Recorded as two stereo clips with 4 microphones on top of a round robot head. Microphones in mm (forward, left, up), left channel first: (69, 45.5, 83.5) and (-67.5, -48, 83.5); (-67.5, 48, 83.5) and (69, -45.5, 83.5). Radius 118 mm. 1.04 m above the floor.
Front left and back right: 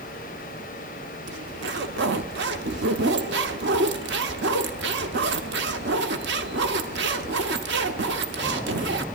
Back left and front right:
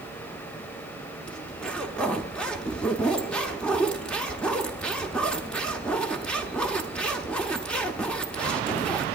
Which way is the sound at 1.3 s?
130° right.